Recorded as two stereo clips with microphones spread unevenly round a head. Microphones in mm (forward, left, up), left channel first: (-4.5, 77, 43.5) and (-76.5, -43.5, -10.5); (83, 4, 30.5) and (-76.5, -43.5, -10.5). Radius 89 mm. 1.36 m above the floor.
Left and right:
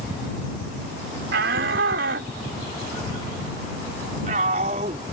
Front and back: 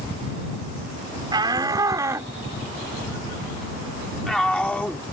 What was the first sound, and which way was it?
A shout, 95° right.